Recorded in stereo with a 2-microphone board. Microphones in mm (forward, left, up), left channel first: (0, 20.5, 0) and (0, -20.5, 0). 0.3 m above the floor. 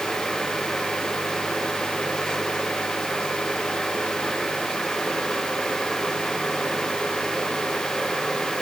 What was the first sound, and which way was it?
Only background noise.